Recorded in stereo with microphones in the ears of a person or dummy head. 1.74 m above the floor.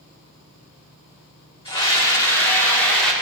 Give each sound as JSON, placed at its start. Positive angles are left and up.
{"t": 1.6, "sound": "a scream", "side_deg": 20, "distance_m": 2.5}